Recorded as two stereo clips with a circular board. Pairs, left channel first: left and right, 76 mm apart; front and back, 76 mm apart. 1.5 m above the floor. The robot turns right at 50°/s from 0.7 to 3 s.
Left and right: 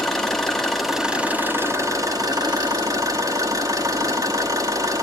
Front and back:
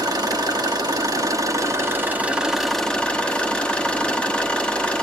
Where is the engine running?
175° left, 1.3 m; by 5.0 s 70° right, 1.3 m.